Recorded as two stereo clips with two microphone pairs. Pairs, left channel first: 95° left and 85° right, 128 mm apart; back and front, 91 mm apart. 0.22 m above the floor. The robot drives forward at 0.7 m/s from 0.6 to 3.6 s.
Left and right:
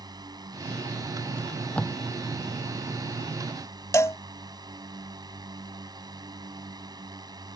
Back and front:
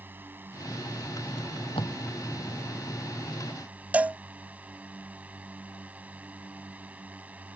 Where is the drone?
55° right; by 7.6 s 60° right.